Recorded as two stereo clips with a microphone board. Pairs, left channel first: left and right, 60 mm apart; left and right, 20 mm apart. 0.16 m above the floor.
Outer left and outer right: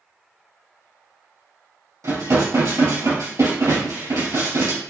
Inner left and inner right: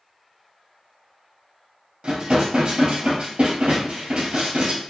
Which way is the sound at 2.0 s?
70° right (ahead or behind).